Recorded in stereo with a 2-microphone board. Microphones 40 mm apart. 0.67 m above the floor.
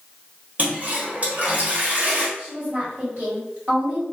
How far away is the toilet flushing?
About 1.3 m.